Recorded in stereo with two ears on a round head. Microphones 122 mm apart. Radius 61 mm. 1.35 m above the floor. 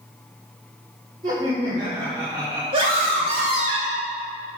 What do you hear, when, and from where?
1.2 s laughter: 30° right (ahead or behind), 2.5 m; by 2.6 s 20° right (ahead or behind), 1.3 m
2.7 s a scream: 40° right (ahead or behind), 2.5 m